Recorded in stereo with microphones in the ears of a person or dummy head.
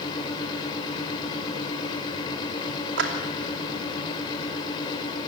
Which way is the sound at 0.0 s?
25° left (ahead or behind).